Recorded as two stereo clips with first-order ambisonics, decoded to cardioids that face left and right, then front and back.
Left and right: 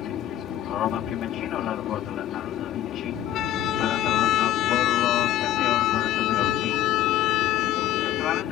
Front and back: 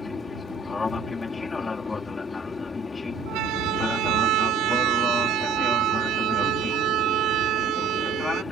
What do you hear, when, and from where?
0.0 s an aircraft: 70° left
3.3 s a siren: 140° left; by 8.4 s 130° left